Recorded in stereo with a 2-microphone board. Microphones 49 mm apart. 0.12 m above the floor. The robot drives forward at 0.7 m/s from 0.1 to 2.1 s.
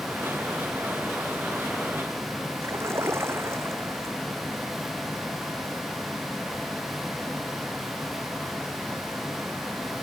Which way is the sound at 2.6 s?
65° right (ahead or behind).